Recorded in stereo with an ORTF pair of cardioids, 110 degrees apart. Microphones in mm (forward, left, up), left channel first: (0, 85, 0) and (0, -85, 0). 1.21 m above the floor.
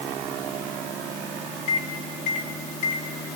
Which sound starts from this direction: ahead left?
A microwave, at 1.7 s.